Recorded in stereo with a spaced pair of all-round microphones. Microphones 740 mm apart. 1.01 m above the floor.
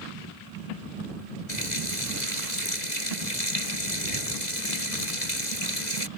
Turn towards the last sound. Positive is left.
turn(degrees=70)  # may be behind; listen again after turning